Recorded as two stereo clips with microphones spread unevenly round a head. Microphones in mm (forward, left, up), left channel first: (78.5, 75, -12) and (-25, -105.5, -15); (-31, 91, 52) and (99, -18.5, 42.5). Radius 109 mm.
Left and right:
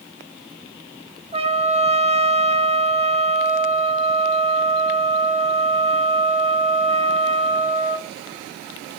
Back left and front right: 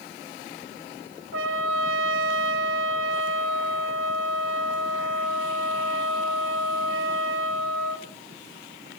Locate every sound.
1.3 s a trumpet: 60° right, 1.7 m